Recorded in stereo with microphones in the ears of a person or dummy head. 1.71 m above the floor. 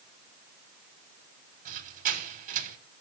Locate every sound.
1.6 s a squeak: 45° right (ahead or behind), 1.1 m